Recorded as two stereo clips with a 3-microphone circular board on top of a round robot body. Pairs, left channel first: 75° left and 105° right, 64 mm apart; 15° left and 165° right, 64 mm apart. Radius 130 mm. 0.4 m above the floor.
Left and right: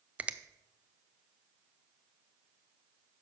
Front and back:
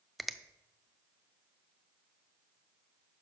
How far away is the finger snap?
About 0.6 m.